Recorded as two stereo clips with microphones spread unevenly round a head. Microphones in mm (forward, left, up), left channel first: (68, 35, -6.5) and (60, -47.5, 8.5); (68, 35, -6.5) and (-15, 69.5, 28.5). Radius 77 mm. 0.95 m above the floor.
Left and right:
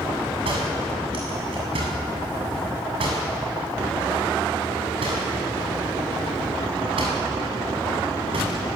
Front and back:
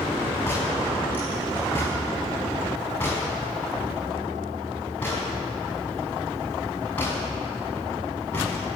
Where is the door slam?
100° right, 7.5 m.